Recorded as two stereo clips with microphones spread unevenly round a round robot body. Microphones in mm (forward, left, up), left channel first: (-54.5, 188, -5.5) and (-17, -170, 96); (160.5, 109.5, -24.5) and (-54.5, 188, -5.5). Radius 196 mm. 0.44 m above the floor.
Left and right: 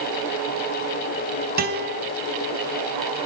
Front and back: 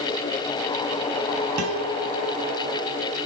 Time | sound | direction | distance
1.6 | a guitar | 155° right | 2.5 m